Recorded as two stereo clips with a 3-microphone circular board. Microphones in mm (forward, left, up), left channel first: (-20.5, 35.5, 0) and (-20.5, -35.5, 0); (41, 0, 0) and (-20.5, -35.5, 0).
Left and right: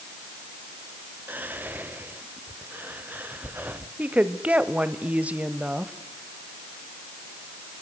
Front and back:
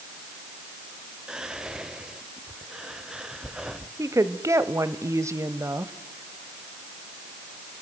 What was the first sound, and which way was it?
Whispering, 85° right.